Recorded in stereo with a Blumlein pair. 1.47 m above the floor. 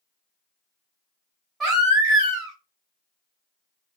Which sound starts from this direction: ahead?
A baby crying, at 1.6 s.